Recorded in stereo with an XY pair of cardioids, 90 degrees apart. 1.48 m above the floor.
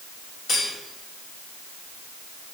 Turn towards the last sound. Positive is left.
turn(degrees=65)